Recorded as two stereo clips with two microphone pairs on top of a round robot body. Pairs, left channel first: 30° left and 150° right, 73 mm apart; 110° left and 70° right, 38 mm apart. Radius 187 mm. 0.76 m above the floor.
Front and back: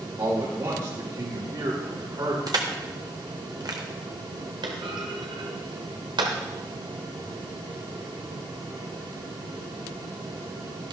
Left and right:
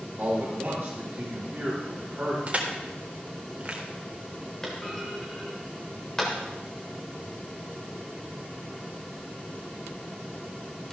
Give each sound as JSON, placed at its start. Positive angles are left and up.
{"t": 0.2, "sound": "a man speaking", "azimuth_deg": -135, "distance_m": 3.0}
{"t": 2.5, "sound": "crushing", "azimuth_deg": -130, "distance_m": 1.6}
{"t": 4.6, "sound": "a clunk", "azimuth_deg": -170, "distance_m": 0.8}